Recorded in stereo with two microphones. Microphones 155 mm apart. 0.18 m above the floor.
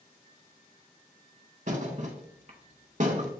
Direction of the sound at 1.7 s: 50° right (ahead or behind).